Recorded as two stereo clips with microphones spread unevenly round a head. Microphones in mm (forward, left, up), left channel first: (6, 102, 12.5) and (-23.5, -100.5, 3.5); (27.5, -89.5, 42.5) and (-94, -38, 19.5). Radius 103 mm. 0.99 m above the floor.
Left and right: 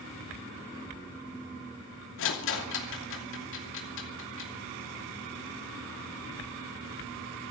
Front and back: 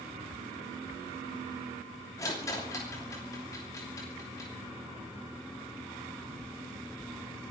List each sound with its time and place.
2.2 s a rattle: 55° left, 2.5 m